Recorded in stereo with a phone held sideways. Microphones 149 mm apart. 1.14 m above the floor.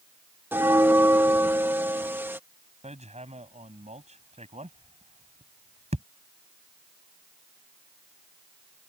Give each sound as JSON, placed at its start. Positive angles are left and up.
{"t": 0.5, "sound": "a bell", "side_deg": -15}
{"t": 2.8, "sound": "hammering", "side_deg": -45}